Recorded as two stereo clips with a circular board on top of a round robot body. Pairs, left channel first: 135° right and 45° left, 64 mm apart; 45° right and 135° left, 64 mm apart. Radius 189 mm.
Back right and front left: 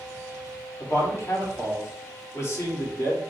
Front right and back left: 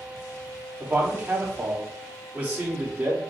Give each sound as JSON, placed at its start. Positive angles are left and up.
{"t": 0.8, "sound": "a man speaking", "azimuth_deg": -165, "distance_m": 1.7}